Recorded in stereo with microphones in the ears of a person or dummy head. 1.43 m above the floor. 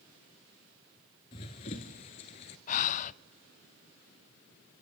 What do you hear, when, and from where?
1.3 s running footsteps: 25° left (ahead or behind), 1.5 m; by 2.6 s 35° left (ahead or behind), 1.6 m
2.7 s breathing: 40° left (ahead or behind), 0.5 m